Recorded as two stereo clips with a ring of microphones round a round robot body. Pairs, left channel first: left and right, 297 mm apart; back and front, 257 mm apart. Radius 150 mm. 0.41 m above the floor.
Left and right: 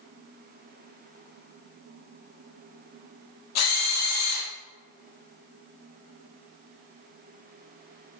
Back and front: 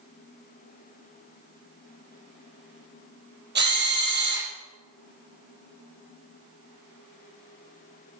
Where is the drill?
50° left, 6 m.